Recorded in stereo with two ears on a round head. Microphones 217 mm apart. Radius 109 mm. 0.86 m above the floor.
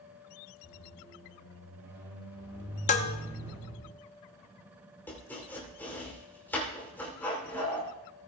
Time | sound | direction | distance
0.6 | a squeak | 15° right (ahead or behind) | 7 m
2.9 | dishes clattering | 30° left (ahead or behind) | 0.7 m
5.1 | chopping | 10° left (ahead or behind) | 3 m